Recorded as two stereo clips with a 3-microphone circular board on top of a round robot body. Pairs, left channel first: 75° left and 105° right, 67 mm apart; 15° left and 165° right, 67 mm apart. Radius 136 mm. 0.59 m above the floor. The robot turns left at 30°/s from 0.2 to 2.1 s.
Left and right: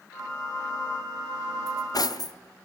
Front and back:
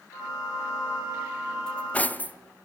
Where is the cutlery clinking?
90° left, 0.8 m; by 2.4 s 80° left, 0.8 m.